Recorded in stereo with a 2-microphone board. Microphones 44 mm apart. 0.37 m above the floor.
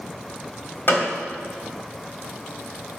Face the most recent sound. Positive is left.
turn(degrees=45)  # may be behind; listen again after turning